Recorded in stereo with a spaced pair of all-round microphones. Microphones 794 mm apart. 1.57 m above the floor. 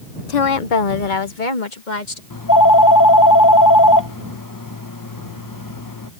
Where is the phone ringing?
25° left (ahead or behind).